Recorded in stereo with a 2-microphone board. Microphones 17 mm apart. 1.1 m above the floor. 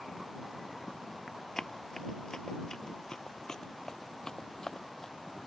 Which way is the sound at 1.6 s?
35° left (ahead or behind).